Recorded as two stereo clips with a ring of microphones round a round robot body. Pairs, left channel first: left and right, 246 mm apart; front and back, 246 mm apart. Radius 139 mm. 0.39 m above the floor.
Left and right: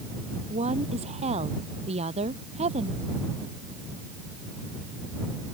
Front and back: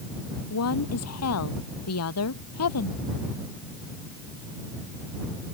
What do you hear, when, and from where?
0.5 s a woman speaking: 20° right